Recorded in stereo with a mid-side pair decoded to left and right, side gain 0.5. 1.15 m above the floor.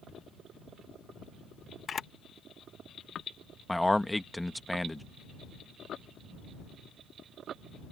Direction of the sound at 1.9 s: 40° left.